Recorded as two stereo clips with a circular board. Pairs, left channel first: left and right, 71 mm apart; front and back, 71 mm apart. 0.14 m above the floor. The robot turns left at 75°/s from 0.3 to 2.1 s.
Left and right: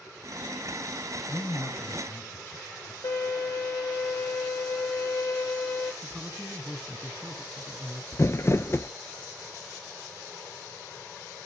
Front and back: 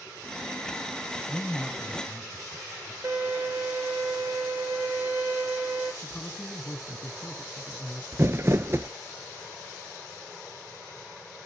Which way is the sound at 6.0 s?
30° right.